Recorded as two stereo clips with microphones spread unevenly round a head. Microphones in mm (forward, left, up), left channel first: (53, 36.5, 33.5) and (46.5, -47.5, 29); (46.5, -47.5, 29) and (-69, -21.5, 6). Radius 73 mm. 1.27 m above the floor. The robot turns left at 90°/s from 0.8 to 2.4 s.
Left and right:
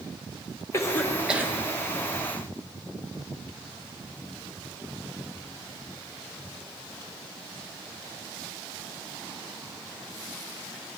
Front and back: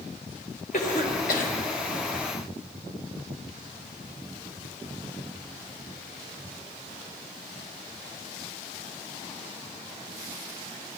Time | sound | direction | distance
0.7 | a cough | 30° left | 1.6 m